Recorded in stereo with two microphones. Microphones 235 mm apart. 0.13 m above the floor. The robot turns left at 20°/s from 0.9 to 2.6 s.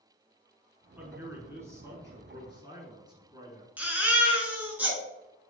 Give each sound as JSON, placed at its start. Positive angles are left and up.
{"t": 1.0, "sound": "a man speaking", "side_deg": -10, "distance_m": 1.3}
{"t": 3.8, "sound": "a baby crying", "side_deg": -5, "distance_m": 1.1}